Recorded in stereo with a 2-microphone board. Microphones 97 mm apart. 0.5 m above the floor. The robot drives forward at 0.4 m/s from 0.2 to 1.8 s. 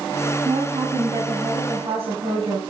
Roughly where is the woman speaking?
Right.